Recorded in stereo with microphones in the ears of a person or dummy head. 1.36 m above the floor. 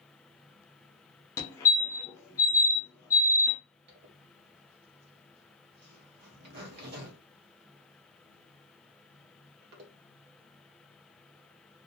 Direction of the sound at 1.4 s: 10° left (ahead or behind).